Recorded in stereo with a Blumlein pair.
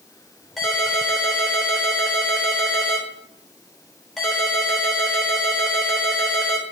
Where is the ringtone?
5° left, 3.5 m.